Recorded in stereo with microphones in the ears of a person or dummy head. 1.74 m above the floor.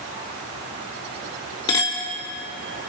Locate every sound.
1.7 s a clink: 20° left (ahead or behind), 1.4 m